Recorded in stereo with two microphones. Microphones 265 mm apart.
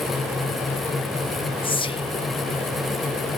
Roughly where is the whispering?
Centre.